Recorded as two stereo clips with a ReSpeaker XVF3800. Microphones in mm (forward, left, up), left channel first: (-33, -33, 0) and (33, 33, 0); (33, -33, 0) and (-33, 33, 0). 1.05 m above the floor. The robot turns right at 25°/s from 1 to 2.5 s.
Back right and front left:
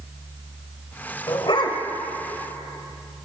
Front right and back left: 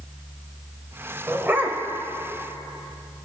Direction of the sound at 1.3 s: 165° right.